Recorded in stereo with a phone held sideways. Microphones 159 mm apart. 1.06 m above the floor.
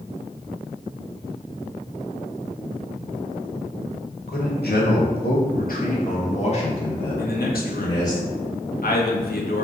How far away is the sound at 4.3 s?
About 1.1 m.